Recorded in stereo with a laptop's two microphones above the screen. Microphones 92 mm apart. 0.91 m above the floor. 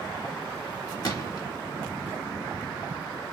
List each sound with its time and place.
1.0 s a gunshot: 45° left (ahead or behind), 1.4 m